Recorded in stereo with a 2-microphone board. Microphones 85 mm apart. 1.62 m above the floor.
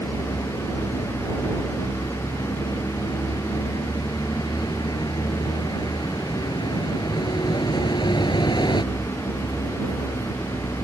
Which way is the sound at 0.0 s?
70° left (ahead or behind).